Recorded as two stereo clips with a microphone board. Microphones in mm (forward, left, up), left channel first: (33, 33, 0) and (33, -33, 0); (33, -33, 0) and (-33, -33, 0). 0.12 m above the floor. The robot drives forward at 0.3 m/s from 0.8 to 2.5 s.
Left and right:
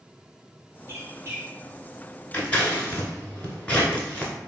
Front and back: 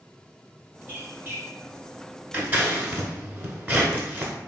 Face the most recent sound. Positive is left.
turn(degrees=145)